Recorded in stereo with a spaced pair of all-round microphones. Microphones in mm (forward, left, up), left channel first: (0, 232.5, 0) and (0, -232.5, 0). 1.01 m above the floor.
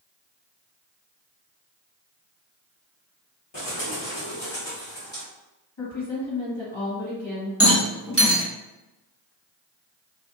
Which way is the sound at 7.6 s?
30° left (ahead or behind).